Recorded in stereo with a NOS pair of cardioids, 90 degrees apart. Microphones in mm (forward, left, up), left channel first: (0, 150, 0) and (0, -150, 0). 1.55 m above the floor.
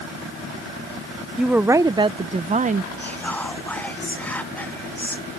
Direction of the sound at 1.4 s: Straight ahead.